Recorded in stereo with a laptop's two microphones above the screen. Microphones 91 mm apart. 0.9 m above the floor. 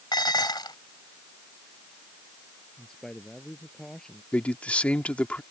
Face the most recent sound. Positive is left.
turn(degrees=15)  # may be behind; listen again after turning